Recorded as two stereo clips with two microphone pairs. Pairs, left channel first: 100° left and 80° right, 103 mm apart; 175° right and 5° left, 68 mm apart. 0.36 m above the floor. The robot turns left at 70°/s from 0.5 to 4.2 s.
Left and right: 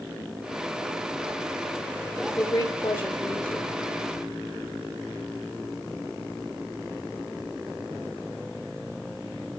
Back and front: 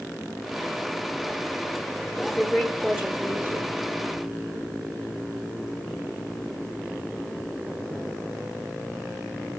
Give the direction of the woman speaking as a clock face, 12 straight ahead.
8 o'clock.